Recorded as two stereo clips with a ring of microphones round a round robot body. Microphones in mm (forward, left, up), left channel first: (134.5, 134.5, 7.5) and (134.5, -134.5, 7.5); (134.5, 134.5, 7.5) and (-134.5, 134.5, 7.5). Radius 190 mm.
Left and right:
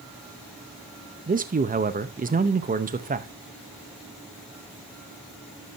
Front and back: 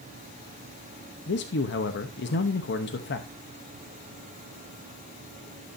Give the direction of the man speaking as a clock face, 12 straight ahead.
1 o'clock.